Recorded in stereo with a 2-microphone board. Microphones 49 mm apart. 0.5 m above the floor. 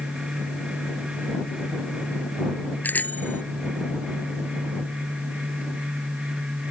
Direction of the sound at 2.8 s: 40° left (ahead or behind).